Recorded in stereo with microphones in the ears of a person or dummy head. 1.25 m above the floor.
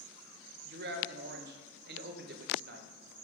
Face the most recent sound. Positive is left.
turn(degrees=-50)  # may be behind; listen again after turning